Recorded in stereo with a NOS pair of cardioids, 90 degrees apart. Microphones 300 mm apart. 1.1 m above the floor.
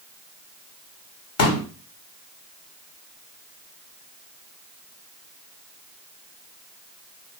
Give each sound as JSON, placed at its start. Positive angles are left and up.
{"t": 1.4, "sound": "a pop", "azimuth_deg": 55, "distance_m": 1.0}